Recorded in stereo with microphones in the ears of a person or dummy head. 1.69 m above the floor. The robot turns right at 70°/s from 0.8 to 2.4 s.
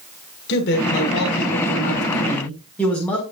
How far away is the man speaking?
About 6 m.